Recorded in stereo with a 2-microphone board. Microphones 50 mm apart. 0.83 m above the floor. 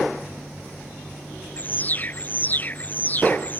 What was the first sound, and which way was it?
An alarm, 35° left (ahead or behind).